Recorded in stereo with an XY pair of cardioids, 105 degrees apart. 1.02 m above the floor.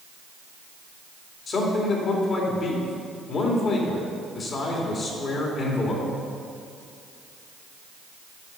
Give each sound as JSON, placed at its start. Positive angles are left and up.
{"t": 1.5, "sound": "a man speaking", "azimuth_deg": 50, "distance_m": 2.5}